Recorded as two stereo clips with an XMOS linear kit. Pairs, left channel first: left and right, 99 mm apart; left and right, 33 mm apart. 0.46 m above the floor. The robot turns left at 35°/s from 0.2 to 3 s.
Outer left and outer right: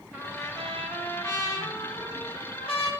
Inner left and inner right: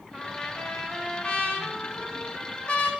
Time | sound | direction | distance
0.1 | a trumpet | 170° right | 1.8 m